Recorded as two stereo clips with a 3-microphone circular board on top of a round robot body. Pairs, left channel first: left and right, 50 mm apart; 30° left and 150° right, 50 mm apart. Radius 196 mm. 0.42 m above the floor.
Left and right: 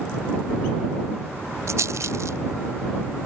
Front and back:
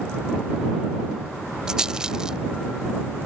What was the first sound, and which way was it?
A rattle, 75° right.